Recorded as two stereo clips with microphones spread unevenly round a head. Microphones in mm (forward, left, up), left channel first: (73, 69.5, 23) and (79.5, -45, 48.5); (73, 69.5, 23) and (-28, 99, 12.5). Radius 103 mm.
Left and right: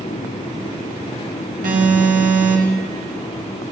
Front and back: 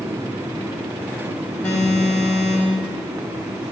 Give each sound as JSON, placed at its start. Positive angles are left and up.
{"t": 1.6, "sound": "an alarm", "azimuth_deg": -100, "distance_m": 4.5}